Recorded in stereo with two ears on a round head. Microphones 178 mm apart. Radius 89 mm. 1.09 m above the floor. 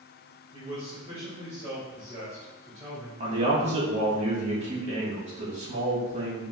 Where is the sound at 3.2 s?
35° right (ahead or behind), 1.6 m.